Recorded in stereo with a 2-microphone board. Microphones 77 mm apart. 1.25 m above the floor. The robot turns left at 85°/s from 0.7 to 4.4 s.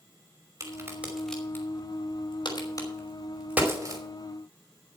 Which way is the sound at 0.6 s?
45° right (ahead or behind).